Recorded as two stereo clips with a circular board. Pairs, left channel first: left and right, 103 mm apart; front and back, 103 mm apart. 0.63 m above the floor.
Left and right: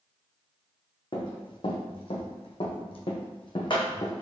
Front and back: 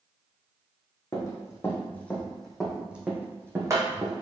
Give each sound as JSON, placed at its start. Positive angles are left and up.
{"t": 1.1, "sound": "running footsteps", "azimuth_deg": 55, "distance_m": 1.5}